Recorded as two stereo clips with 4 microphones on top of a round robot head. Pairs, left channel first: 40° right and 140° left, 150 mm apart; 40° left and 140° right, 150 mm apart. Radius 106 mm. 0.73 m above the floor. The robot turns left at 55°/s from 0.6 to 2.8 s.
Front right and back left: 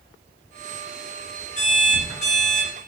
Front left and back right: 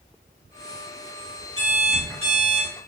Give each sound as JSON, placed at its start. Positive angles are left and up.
{"t": 1.6, "sound": "an alarm clock", "azimuth_deg": -5, "distance_m": 1.7}